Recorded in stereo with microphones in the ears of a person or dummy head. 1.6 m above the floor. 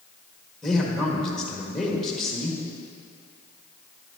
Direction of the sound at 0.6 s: Centre (ahead or behind).